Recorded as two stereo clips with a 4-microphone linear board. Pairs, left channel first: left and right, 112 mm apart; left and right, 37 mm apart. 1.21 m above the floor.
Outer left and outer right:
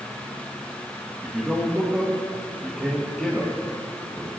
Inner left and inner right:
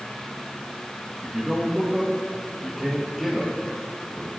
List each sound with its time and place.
1.2 s a man speaking: centre (ahead or behind), 1.4 m